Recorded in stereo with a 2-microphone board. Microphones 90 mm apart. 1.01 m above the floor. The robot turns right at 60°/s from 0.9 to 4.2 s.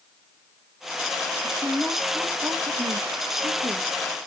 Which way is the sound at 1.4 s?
15° left (ahead or behind).